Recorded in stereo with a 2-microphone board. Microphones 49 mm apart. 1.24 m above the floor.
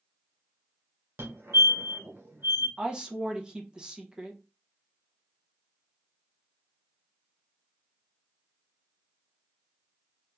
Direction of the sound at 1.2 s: 60° right (ahead or behind).